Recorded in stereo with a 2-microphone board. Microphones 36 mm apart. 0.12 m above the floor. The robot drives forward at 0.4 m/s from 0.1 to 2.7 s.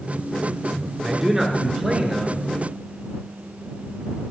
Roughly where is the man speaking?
Centre.